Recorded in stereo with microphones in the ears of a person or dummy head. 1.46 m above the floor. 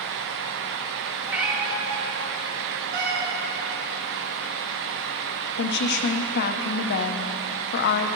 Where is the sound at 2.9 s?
60° right (ahead or behind), 1.9 m.